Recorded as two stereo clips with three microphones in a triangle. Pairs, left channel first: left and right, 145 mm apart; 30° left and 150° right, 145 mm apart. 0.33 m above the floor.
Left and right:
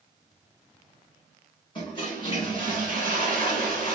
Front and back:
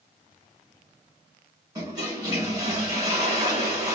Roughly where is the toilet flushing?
Behind left.